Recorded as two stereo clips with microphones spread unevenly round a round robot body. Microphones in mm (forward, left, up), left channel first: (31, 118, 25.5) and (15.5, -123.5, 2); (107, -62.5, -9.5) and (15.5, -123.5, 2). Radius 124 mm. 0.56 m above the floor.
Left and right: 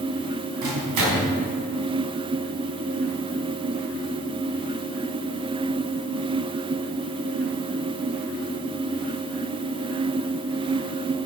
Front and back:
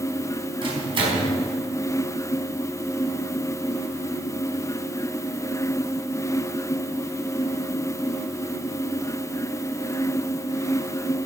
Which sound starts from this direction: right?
A microwave, at 0.6 s.